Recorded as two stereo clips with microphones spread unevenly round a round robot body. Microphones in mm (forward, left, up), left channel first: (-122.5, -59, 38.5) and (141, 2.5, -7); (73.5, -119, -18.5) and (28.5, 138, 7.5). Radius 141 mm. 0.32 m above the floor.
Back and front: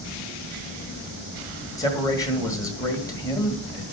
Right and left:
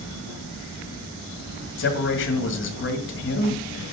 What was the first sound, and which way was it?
A man speaking, 85° right.